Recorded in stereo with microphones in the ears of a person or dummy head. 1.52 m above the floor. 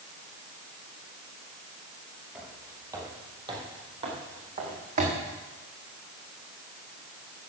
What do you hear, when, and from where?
2.4 s footsteps: centre (ahead or behind), 2.5 m; by 5.2 s 35° right (ahead or behind), 5 m